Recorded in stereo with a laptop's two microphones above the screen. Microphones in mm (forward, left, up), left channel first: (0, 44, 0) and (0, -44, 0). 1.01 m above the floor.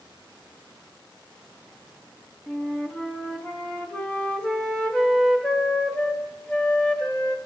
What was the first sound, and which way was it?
A flute, 10° left (ahead or behind).